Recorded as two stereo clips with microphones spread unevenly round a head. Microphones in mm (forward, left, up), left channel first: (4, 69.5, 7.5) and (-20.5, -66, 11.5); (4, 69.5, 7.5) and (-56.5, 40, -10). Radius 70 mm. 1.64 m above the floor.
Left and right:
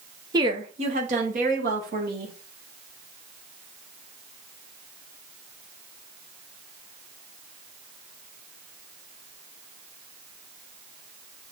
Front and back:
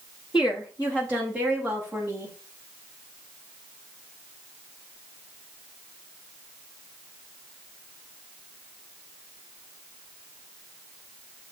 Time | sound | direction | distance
0.3 | a woman speaking | 35° right | 1.2 m